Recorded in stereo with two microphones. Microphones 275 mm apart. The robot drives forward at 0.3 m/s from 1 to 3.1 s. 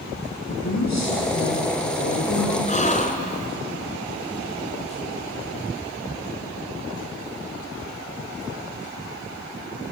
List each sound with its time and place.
0.5 s a woman speaking: 65° left (ahead or behind), 7.5 m
2.7 s a gasp: 25° left (ahead or behind), 2 m